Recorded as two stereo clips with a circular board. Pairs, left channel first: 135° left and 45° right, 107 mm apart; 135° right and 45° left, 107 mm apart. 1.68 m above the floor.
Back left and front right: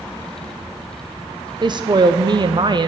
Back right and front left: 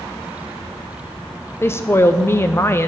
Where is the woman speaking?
75° right, 0.6 m.